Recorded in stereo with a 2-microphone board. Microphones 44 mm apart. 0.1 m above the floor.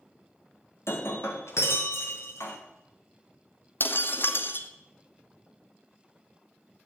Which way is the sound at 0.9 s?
70° left (ahead or behind).